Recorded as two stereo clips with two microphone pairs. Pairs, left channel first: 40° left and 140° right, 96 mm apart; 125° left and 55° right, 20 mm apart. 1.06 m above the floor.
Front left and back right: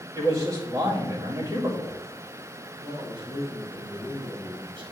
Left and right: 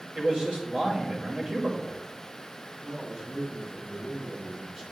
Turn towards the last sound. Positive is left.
turn(degrees=-110)